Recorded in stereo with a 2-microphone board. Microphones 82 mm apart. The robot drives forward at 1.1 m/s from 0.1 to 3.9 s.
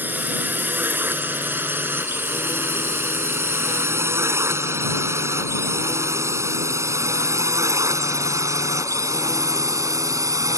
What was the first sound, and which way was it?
A drone, 25° right (ahead or behind).